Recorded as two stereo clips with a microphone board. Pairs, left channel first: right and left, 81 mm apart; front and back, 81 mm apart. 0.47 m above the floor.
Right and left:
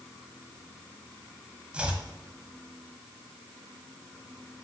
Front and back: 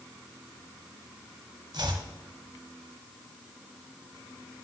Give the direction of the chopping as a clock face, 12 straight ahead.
6 o'clock.